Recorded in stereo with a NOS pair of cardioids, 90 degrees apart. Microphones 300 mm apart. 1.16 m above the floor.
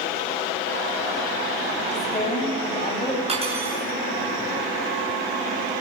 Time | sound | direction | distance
1.9 | a woman speaking | 25° left | 8.5 m
3.3 | cutlery clinking | 20° right | 8.5 m